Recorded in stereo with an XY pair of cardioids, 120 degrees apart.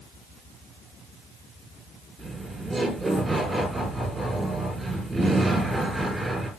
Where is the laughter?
10° right, 5 m.